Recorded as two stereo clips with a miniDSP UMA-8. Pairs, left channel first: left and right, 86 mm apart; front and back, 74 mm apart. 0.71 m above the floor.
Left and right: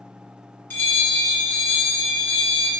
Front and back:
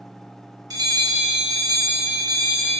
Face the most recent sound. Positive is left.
turn(degrees=155)